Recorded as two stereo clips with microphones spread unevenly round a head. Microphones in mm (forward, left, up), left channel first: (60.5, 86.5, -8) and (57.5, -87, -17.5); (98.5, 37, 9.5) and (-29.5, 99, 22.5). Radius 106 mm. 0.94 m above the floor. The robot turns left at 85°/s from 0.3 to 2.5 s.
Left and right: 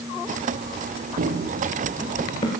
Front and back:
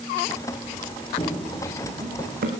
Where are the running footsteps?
85° right, 1.2 m; by 2.5 s 145° left, 2.5 m.